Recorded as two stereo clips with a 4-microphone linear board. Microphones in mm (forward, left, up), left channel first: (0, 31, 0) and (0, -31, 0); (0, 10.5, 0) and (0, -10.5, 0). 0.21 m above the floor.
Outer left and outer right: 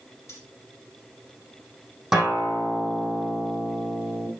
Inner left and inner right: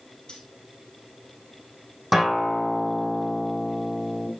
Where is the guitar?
Centre (ahead or behind), 4 m.